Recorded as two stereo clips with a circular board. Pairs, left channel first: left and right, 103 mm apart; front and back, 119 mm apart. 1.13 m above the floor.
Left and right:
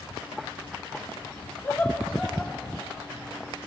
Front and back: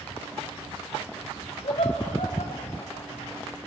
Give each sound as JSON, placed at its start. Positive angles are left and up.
{"t": 1.6, "sound": "laughter", "azimuth_deg": 20, "distance_m": 3.0}